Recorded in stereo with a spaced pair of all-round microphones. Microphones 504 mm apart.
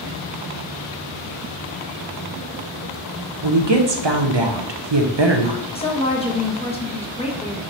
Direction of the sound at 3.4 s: 55° right (ahead or behind).